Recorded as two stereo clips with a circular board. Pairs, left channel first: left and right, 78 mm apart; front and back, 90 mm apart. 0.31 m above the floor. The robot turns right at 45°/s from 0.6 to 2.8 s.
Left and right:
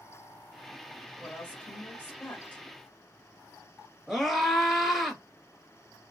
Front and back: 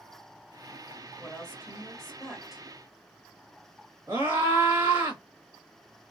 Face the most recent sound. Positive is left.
turn(degrees=-175)